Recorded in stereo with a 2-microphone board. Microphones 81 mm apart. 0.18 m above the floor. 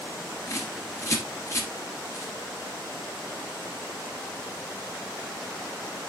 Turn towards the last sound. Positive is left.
turn(degrees=35)  # may be behind; listen again after turning